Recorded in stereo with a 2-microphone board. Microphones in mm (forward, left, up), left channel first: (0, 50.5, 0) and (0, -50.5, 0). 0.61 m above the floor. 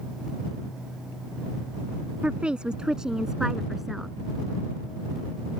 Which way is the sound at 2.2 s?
10° right (ahead or behind).